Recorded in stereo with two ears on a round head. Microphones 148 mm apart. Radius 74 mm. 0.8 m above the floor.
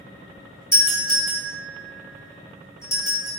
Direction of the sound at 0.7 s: 20° left (ahead or behind).